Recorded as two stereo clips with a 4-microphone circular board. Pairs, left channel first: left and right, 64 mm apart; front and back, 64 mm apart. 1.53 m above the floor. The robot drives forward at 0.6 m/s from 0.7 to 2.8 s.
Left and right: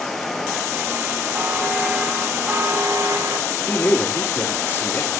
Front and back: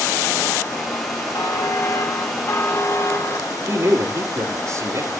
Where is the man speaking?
145° left, 4 m.